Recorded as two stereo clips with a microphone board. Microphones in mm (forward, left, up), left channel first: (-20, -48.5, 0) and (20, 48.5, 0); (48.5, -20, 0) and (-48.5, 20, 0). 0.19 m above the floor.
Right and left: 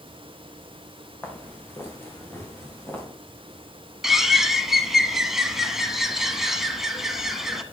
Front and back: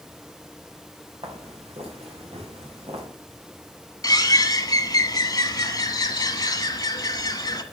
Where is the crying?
No crying in this recording.